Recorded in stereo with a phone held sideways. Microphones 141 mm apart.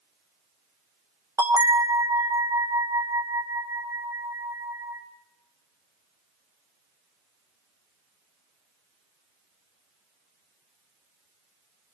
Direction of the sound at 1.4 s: 20° right (ahead or behind).